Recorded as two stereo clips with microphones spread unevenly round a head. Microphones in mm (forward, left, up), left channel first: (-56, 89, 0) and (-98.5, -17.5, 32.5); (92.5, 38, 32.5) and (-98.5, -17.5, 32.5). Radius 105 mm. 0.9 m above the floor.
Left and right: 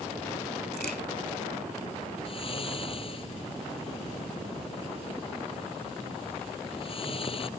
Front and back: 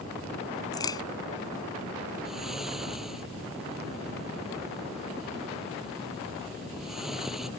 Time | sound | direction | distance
0.7 | a crack | 55° right | ?
2.2 | snoring | 110° left | ?